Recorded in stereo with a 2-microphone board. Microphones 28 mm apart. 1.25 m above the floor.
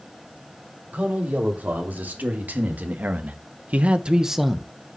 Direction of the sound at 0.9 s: 80° right.